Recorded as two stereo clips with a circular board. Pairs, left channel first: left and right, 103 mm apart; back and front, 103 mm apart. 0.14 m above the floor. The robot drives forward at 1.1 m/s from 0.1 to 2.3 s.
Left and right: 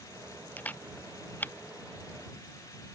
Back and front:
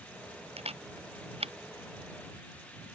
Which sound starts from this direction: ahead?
A camera shutter, at 0.6 s.